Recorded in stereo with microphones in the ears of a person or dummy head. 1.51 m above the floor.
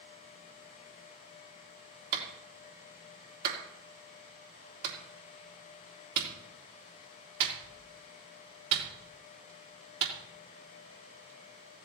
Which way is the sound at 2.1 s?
55° right (ahead or behind).